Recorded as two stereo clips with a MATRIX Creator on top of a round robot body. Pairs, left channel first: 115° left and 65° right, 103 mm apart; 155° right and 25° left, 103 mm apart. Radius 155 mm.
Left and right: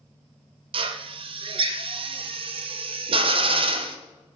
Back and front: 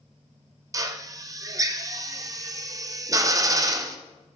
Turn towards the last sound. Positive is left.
turn(degrees=-35)